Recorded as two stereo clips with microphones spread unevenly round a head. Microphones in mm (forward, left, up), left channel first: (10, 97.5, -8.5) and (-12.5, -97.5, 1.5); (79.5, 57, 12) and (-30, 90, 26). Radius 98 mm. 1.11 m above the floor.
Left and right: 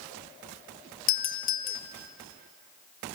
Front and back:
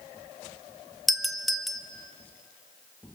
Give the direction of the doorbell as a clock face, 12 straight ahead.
10 o'clock.